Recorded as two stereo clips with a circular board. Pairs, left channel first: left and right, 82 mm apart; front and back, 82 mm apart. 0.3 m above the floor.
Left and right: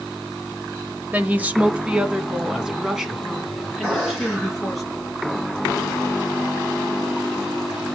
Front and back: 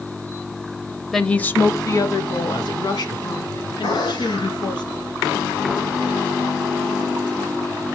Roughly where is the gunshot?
Ahead.